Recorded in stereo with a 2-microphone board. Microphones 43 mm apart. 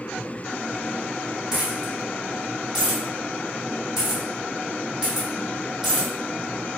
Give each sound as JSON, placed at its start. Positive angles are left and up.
{"t": 1.5, "sound": "a dropped coin", "side_deg": -15, "distance_m": 1.8}